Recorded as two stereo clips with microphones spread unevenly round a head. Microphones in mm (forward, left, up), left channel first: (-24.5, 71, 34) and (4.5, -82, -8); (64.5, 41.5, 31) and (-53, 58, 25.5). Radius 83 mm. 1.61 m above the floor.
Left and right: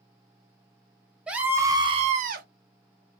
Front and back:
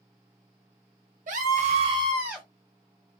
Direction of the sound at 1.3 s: 160° right.